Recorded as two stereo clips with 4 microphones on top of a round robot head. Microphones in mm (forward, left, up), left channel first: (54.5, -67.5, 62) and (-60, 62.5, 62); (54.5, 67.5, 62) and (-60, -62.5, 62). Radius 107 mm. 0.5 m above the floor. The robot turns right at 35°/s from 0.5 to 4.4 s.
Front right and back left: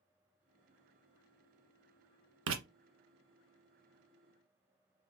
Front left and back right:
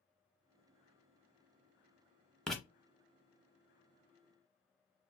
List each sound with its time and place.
2.5 s writing: 135° left, 0.6 m; by 2.6 s 140° left, 0.6 m